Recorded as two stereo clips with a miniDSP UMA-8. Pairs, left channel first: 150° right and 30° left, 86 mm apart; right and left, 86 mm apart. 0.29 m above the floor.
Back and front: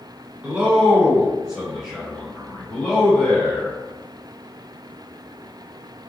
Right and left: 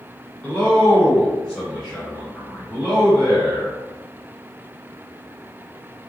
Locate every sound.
0.4 s a man speaking: 25° right, 1.8 m; by 3.8 s 175° left, 1.6 m